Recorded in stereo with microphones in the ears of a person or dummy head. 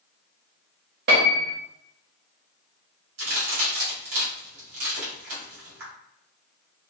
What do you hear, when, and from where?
1.1 s a piano: 45° right (ahead or behind), 0.7 m
3.2 s a crack: 70° right (ahead or behind), 1.7 m